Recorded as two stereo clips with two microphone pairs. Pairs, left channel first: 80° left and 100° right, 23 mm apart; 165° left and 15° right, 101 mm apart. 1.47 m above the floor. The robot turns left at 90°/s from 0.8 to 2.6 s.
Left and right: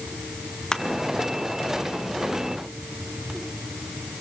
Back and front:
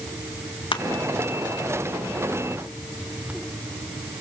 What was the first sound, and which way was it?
Crushing, 135° left.